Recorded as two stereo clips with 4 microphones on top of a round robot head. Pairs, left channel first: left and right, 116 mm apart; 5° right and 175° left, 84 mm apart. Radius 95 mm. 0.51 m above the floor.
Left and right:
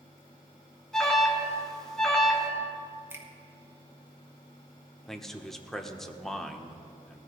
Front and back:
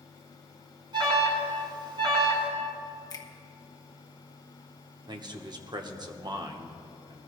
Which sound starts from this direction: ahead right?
A finger snap, at 3.1 s.